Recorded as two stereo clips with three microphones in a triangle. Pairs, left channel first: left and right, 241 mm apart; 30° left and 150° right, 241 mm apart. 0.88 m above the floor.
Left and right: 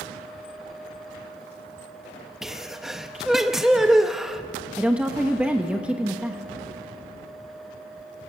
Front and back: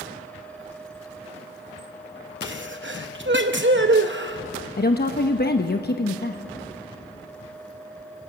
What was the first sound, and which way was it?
A sneeze, straight behind.